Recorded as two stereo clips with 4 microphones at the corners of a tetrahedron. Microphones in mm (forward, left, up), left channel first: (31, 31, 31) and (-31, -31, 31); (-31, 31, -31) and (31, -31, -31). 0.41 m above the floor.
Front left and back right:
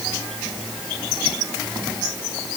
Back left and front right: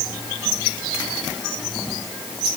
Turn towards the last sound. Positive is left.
No sound to turn to.